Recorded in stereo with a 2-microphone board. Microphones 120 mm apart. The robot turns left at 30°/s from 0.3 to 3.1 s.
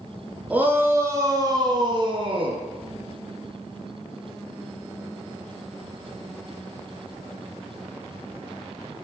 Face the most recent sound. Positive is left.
turn(degrees=-95)